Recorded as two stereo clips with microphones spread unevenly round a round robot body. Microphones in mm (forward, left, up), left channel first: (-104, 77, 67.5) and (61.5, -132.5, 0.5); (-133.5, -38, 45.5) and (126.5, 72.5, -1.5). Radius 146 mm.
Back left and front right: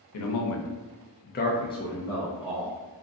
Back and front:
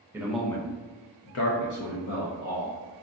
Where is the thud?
No thud in this recording.